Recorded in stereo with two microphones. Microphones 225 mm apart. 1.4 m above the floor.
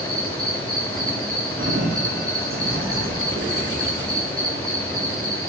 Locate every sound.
0.0 s an insect: 80° right, 5 m
1.6 s a sliding door: 70° right (ahead or behind), 2.5 m